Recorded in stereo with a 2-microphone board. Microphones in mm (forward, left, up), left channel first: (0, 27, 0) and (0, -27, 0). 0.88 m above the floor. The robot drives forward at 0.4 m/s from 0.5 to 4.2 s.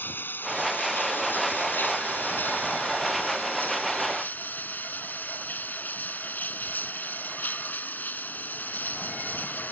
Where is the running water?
35° left (ahead or behind); by 9.7 s 30° left (ahead or behind).